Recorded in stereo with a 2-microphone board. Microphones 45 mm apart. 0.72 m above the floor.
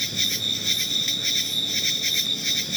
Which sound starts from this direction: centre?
An insect, at 0.0 s.